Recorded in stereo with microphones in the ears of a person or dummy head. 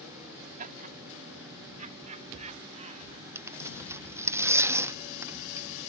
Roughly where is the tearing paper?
Centre.